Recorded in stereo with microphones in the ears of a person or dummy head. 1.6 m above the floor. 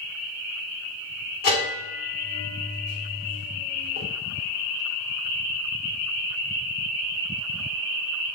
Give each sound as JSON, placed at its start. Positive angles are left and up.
{"t": 1.4, "sound": "a bell", "side_deg": 55, "distance_m": 2.0}